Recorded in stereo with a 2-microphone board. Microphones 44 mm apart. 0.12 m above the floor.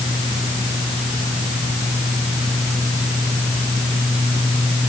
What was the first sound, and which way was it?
Only background noise.